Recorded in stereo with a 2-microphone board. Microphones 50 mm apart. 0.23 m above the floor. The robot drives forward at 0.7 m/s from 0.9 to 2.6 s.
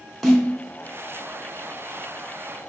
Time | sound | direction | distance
0.2 | a snare drum | centre (ahead or behind) | 1.1 m